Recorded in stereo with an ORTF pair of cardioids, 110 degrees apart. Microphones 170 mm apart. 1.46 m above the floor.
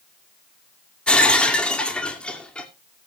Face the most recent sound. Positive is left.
turn(degrees=5)